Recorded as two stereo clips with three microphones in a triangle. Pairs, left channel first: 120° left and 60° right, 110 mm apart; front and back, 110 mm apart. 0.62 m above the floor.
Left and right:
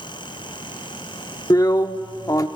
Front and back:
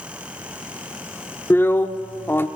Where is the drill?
65° left, 0.9 m.